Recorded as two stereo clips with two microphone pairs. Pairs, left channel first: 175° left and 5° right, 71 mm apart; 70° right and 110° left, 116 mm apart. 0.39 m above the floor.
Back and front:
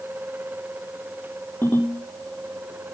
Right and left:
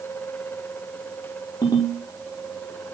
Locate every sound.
1.6 s a ringtone: 125° right, 8 m